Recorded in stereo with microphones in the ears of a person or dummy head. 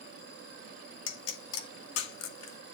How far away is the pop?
About 2 m.